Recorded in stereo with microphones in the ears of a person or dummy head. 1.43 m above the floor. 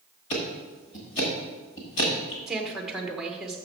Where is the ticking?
40° left (ahead or behind), 1.2 m.